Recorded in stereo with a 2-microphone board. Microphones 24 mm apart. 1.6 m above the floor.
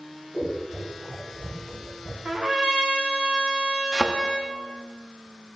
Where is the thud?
30° right (ahead or behind), 1.1 m.